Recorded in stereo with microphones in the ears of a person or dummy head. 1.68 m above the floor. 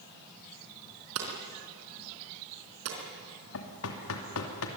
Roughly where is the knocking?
Left.